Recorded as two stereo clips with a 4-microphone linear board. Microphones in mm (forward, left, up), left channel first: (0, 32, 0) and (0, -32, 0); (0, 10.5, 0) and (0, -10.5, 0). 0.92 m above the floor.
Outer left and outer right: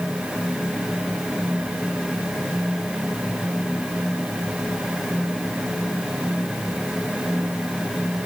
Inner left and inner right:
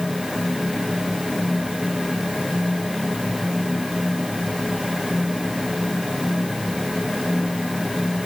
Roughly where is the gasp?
No gasp in this recording.